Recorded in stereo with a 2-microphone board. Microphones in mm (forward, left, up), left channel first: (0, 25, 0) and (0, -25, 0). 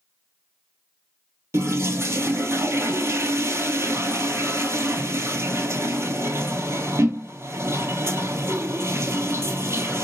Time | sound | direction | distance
1.5 | a toilet flushing | 65° right (ahead or behind) | 0.6 m